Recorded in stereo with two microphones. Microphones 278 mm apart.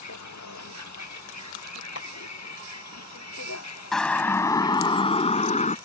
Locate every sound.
0.0 s a vehicle: 80° left; by 5.8 s 65° left (ahead or behind)
1.9 s a clap: 60° left (ahead or behind)
3.9 s a siren: centre (ahead or behind); by 5.8 s 25° left (ahead or behind)